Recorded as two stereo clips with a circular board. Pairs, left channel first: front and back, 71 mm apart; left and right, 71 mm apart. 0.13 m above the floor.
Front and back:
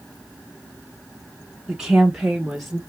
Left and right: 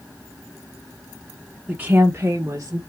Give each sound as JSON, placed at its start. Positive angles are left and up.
{"t": 1.7, "sound": "a woman speaking", "azimuth_deg": -125, "distance_m": 1.1}